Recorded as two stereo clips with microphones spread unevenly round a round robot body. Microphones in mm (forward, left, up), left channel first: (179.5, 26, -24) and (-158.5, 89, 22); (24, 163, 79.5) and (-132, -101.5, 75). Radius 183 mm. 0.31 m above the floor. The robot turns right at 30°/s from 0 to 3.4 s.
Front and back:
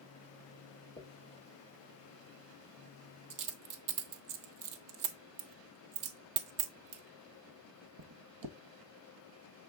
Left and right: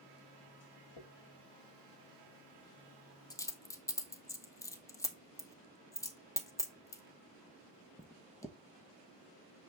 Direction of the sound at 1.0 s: 65° left.